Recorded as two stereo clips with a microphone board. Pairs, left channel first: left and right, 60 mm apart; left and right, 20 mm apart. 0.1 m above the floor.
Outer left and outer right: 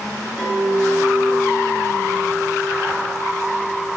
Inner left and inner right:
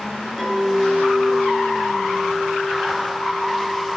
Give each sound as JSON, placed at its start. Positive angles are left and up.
{"t": 0.4, "sound": "a clink", "side_deg": 5, "distance_m": 4.5}